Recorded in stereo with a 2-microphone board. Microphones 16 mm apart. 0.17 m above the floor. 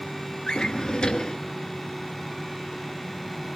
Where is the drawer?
55° left (ahead or behind), 1.1 m.